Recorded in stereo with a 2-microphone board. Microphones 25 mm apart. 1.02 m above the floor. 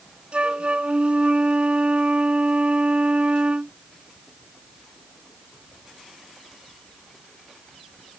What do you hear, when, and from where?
0.3 s a flute: 55° right (ahead or behind)